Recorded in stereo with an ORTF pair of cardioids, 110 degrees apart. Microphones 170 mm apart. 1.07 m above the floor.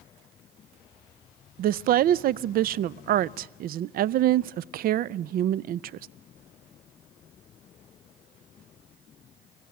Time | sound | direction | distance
1.6 | a woman speaking | 60° right | 0.5 m